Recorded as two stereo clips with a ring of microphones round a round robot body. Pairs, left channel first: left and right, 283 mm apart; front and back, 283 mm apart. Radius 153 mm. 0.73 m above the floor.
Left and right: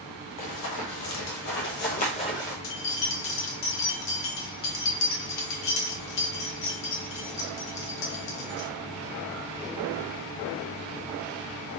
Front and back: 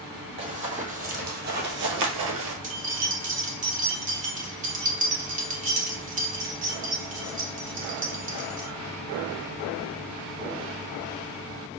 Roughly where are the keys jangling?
Behind left.